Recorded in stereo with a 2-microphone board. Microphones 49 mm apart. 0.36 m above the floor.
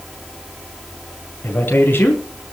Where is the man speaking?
45° left (ahead or behind), 4 m.